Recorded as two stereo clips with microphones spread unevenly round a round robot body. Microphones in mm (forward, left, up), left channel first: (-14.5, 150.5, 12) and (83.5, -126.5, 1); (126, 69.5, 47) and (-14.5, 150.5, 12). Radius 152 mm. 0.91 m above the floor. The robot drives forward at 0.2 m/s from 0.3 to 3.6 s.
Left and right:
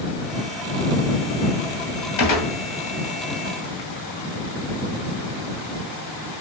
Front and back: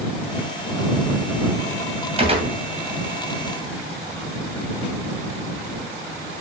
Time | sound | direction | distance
2.2 | a gunshot | 95° left | 2.5 m